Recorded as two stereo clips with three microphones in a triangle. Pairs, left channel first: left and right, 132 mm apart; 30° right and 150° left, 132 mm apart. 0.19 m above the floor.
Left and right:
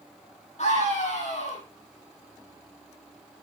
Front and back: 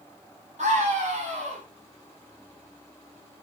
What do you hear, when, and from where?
0.6 s a scream: 120° left, 7.5 m